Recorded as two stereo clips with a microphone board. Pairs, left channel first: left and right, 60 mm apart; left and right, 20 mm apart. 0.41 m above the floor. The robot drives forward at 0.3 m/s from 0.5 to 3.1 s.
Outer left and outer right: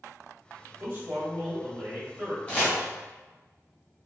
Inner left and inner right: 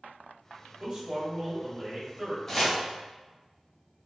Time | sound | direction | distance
0.8 | a man speaking | 25° right (ahead or behind) | 1.5 m
2.5 | chopping | 25° left (ahead or behind) | 1.1 m